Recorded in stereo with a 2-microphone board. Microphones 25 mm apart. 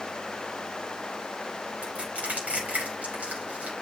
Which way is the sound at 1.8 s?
85° right.